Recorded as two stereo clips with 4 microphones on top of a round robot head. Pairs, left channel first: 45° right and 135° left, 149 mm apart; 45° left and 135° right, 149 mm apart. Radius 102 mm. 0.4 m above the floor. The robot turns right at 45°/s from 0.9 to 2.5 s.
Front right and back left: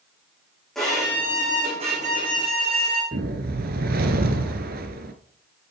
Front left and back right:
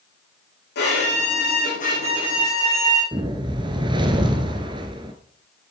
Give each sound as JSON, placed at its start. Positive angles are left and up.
{"t": 0.8, "sound": "a violin", "azimuth_deg": 40, "distance_m": 5.5}
{"t": 3.1, "sound": "a whoosh", "azimuth_deg": 165, "distance_m": 1.1}